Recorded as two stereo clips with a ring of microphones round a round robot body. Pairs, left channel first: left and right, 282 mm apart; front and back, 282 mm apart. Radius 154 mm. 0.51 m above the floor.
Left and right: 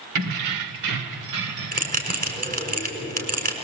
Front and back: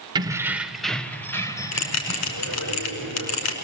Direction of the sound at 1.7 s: 30° right.